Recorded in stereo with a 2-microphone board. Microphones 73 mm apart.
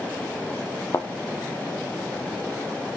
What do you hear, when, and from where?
0.9 s a thud: 35° left (ahead or behind), 1.0 m